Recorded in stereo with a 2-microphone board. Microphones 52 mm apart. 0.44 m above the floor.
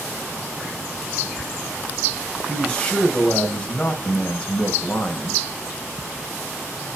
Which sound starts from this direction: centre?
A man speaking, at 2.5 s.